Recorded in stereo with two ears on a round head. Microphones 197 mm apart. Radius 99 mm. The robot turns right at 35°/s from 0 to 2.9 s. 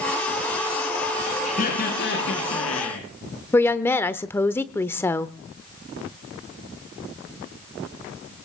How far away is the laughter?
About 5 m.